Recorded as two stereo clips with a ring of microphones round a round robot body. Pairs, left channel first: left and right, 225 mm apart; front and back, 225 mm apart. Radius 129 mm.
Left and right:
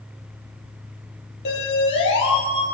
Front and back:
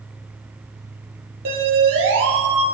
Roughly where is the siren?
Behind left.